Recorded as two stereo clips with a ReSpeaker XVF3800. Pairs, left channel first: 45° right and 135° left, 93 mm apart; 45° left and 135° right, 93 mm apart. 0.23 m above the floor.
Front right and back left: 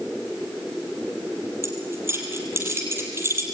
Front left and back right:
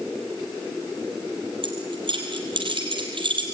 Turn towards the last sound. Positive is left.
turn(degrees=-165)